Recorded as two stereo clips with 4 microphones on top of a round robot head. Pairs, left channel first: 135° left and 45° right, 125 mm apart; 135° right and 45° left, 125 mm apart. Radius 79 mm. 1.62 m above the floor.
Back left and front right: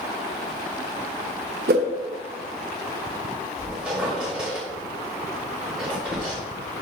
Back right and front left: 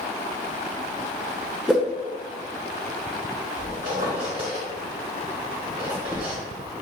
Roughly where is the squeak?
Ahead left.